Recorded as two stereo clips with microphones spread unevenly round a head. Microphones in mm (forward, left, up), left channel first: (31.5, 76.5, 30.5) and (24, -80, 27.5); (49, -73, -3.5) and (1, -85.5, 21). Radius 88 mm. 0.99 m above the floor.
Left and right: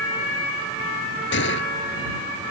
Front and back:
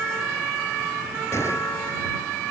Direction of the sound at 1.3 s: 85° left.